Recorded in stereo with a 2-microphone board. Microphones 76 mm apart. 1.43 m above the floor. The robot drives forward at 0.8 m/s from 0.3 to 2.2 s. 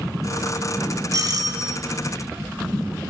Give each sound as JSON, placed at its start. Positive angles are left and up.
{"t": 1.1, "sound": "a doorbell", "side_deg": -50, "distance_m": 1.5}